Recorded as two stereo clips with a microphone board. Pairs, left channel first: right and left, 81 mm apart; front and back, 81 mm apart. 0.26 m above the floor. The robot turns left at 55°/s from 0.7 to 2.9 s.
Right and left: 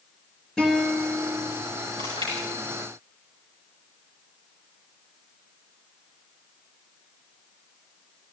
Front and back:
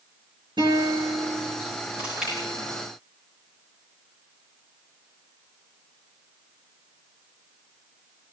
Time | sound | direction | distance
0.6 | a guitar | 170° right | 6 m
2.0 | chewing | 110° left | 9.5 m